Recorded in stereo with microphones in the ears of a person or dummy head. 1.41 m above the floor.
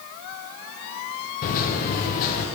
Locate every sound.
1.4 s a microwave: 45° left (ahead or behind), 0.6 m